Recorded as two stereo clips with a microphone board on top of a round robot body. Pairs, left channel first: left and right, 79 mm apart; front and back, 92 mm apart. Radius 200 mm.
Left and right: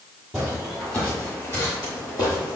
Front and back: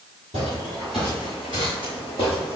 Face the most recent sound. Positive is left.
turn(degrees=105)